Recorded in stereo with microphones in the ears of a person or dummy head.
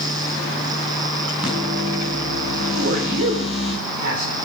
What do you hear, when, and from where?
1.4 s a microwave: 10° right (ahead or behind), 6.5 m
2.7 s a man speaking: 60° right (ahead or behind), 3 m